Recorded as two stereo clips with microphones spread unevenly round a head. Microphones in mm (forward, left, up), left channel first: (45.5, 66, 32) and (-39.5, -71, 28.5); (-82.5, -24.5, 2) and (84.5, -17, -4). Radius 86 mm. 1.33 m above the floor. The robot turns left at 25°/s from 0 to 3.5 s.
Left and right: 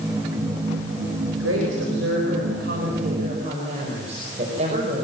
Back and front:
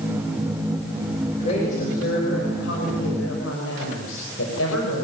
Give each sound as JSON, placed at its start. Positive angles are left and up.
{"t": 1.3, "sound": "a woman speaking", "azimuth_deg": -120, "distance_m": 5.5}